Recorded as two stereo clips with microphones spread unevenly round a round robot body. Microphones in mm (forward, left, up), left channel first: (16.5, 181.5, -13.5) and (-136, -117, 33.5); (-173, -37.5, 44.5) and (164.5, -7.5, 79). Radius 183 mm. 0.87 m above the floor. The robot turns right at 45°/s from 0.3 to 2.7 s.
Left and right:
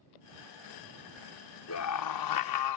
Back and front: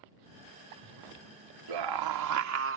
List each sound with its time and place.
1.7 s a scream: 15° left; by 2.8 s 60° left